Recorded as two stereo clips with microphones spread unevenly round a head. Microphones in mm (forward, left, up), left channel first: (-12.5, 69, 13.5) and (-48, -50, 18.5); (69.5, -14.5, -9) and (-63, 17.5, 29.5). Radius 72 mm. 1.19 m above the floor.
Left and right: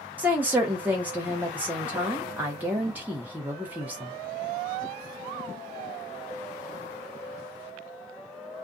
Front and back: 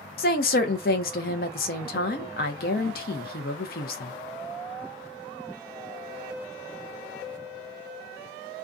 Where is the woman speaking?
30° right, 0.7 m.